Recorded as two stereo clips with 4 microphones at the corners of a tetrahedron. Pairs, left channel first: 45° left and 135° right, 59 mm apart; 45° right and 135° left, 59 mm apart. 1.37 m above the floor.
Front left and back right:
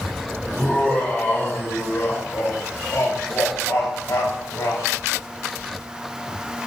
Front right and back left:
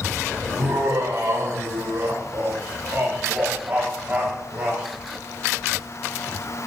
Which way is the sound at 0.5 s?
115° left.